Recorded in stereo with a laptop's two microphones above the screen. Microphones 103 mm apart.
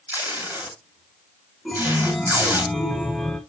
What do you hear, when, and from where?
0.1 s tape being pulled: 20° right (ahead or behind), 2.5 m
1.6 s a chime: 5° left (ahead or behind), 1.0 m